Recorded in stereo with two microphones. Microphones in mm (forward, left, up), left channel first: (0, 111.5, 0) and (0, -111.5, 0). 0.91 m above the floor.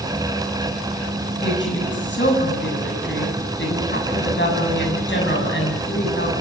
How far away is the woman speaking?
About 7.5 m.